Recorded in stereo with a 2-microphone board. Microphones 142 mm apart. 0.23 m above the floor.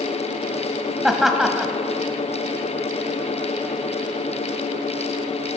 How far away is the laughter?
About 1.0 m.